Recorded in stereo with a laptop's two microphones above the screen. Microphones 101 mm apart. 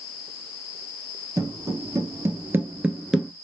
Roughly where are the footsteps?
Right.